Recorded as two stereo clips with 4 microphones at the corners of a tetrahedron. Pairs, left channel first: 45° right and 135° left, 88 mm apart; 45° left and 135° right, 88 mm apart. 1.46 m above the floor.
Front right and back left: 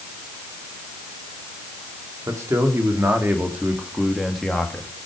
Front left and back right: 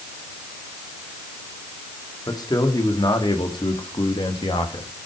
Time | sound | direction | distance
2.3 | a man speaking | 85° left | 3 m